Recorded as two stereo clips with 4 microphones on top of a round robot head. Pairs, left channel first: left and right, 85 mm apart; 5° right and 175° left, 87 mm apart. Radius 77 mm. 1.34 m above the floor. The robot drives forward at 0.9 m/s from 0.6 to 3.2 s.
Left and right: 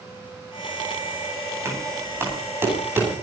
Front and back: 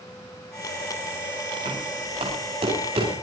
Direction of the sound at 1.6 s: 150° right.